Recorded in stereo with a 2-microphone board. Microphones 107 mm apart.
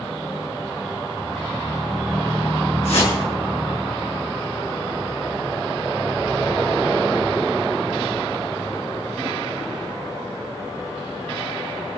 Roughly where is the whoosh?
Left.